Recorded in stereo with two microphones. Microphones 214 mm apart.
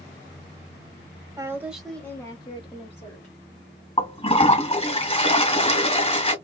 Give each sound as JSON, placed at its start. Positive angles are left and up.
{"t": 1.4, "sound": "a woman speaking", "side_deg": -15, "distance_m": 1.2}
{"t": 4.0, "sound": "a toilet flushing", "side_deg": 30, "distance_m": 1.5}